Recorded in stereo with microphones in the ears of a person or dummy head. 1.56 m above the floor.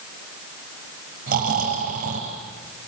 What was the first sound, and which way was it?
Snoring, 45° right (ahead or behind).